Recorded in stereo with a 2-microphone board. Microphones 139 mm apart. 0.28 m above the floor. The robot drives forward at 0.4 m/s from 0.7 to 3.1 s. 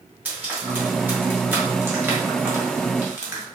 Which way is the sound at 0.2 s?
15° right (ahead or behind).